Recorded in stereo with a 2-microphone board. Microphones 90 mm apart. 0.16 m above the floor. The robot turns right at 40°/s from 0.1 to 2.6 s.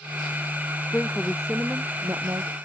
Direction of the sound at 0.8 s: 160° left.